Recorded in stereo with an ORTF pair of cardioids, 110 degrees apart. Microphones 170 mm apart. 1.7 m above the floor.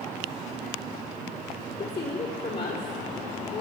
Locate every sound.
1.8 s a woman speaking: 35° left, 4 m